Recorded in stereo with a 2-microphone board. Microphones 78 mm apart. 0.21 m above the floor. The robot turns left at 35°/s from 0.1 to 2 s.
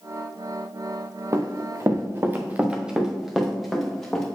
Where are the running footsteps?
45° right (ahead or behind), 1.2 m; by 4.2 s 5° left (ahead or behind), 2.5 m.